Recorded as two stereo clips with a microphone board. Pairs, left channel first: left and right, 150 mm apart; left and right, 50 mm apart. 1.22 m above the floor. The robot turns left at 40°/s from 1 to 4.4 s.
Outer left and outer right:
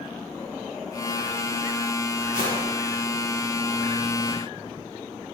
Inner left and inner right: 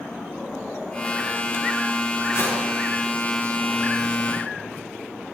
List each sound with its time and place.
2.3 s a whoosh: 65° left (ahead or behind), 6 m; by 2.5 s 75° left (ahead or behind), 6 m